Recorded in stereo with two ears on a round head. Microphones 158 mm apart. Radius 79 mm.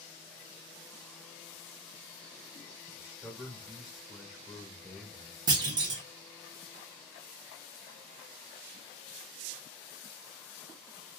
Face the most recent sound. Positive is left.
turn(degrees=-25)  # may be behind; listen again after turning